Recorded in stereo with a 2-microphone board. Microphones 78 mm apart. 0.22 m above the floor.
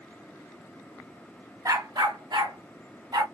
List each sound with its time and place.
1.6 s a dog barking: 50° right (ahead or behind), 1.1 m; by 3.2 s 70° right (ahead or behind), 2.5 m